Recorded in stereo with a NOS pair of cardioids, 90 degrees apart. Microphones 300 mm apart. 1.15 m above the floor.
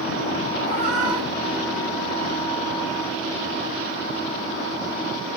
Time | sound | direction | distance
0.6 | a cat meowing | 60° right | 1.0 m